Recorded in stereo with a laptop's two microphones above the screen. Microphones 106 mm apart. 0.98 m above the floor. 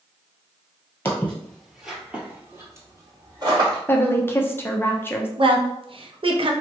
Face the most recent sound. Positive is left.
turn(degrees=-55)  # may be behind; listen again after turning